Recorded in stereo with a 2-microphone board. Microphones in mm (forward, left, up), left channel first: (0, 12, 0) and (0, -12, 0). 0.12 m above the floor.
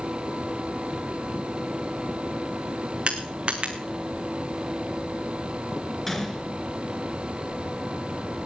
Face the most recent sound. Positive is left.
turn(degrees=10)  # may be behind; listen again after turning